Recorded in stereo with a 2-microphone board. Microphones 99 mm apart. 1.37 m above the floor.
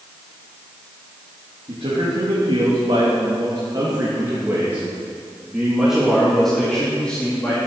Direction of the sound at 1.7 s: 70° right (ahead or behind).